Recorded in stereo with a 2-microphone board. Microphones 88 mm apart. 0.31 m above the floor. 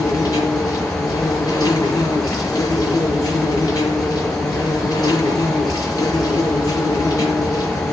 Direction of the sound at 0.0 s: 40° left (ahead or behind).